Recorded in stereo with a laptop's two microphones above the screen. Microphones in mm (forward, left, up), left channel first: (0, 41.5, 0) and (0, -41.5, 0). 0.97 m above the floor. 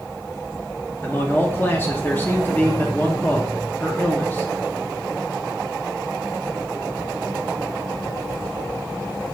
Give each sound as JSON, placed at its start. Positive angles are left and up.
{"t": 1.0, "sound": "a man speaking", "side_deg": 25, "distance_m": 0.9}